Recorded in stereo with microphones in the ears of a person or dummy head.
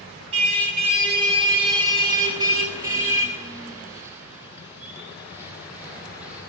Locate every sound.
0.3 s a car horn: 35° right (ahead or behind), 7 m; by 6.4 s 10° right (ahead or behind), 14 m